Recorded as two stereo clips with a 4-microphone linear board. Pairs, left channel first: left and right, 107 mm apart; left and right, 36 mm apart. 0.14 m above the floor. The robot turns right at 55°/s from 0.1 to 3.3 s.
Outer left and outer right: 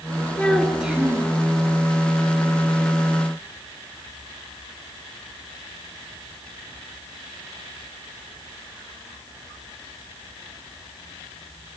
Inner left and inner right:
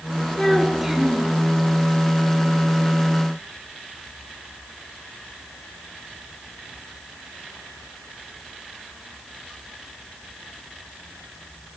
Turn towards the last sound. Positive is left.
turn(degrees=-35)